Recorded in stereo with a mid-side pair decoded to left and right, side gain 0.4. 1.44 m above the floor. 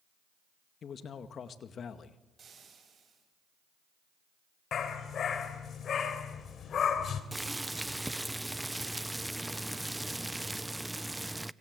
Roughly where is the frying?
Ahead right.